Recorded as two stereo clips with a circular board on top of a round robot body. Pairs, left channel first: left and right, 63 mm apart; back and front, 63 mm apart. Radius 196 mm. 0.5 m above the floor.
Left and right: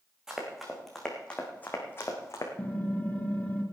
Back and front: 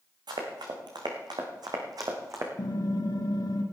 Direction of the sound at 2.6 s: 160° left.